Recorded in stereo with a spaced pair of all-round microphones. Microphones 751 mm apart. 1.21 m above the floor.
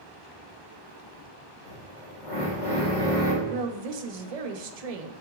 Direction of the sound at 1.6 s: 80° left.